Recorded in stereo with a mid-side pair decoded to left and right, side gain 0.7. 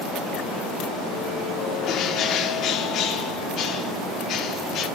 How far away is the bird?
About 1.5 m.